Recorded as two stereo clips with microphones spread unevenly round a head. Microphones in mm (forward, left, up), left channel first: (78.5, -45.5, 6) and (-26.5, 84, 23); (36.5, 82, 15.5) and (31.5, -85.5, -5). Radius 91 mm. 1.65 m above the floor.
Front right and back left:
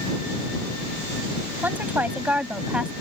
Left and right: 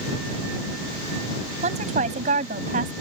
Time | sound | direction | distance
1.6 | a woman speaking | 150° right | ?